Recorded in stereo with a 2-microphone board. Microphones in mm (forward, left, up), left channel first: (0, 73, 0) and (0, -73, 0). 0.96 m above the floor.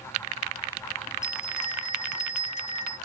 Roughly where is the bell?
Left.